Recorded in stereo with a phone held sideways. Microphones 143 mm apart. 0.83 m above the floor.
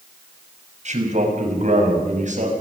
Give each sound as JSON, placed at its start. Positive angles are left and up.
{"t": 0.8, "sound": "a man speaking", "side_deg": -55, "distance_m": 6.5}